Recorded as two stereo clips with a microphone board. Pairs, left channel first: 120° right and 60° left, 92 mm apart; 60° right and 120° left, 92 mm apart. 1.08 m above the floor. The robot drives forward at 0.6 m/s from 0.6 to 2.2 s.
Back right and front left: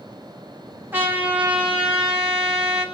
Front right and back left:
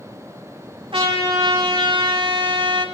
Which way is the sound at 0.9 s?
125° left.